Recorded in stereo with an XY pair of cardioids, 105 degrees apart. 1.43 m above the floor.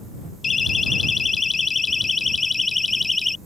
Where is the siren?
35° left; by 3.4 s 15° left.